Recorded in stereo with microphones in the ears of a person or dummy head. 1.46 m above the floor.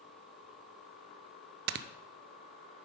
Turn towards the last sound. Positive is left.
turn(degrees=-60)  # may be behind; listen again after turning